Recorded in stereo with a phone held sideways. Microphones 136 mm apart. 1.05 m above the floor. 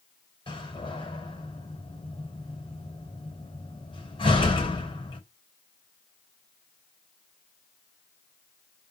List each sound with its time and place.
0.5 s a door slam: 40° left (ahead or behind), 3.5 m